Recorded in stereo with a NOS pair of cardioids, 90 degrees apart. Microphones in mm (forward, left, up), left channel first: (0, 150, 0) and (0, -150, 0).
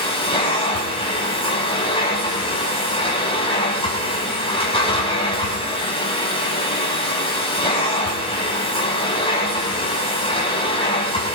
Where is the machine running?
20° left, 6 m.